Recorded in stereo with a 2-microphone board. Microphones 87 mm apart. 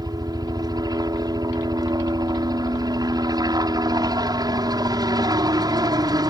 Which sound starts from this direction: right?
A helicopter, at 0.0 s.